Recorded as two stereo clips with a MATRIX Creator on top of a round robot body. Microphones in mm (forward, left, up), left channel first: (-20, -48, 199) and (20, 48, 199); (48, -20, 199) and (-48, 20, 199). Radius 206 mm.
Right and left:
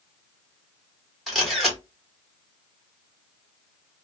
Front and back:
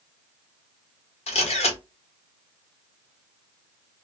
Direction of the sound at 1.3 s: 25° right.